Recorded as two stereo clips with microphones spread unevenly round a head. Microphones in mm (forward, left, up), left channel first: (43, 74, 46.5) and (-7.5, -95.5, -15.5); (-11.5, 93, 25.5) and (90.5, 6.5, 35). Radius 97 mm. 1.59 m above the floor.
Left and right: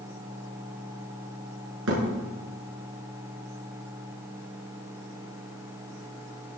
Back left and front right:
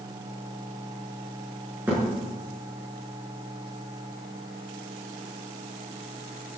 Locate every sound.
1.9 s a thud: 120° right, 6 m